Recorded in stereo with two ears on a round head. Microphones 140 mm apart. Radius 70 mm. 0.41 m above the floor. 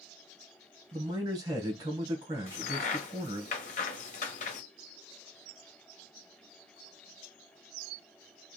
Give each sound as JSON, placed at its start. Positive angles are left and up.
{"t": 0.9, "sound": "a man speaking", "side_deg": -25, "distance_m": 2.5}
{"t": 2.5, "sound": "a crack", "side_deg": 50, "distance_m": 1.1}